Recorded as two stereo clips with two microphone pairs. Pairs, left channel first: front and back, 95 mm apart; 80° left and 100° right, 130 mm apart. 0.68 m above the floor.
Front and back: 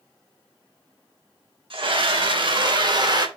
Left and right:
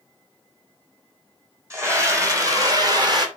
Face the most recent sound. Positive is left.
turn(degrees=-150)